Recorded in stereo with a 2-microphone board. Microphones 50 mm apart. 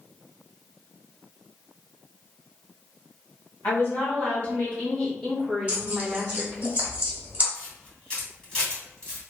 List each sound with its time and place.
3.6 s a woman speaking: 45° left (ahead or behind), 1.5 m; by 6.7 s 25° right (ahead or behind), 1.3 m
5.7 s tearing paper: 25° right (ahead or behind), 1.0 m
7.5 s a camera shutter: 20° left (ahead or behind), 1.8 m